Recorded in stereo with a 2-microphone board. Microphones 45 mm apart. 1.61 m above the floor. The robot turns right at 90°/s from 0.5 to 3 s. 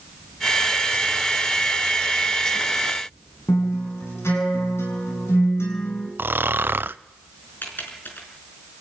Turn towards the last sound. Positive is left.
turn(degrees=50)  # may be behind; listen again after turning